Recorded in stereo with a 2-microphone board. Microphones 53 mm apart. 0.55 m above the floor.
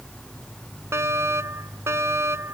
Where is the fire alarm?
55° right (ahead or behind).